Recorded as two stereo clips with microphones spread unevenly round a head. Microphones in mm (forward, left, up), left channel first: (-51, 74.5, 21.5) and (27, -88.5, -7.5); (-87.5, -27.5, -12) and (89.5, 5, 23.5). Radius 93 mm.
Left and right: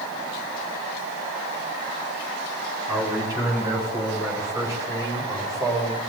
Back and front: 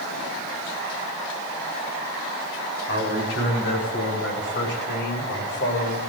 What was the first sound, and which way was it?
A man speaking, 140° right.